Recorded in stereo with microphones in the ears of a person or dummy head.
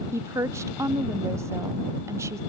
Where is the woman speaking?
15° right (ahead or behind).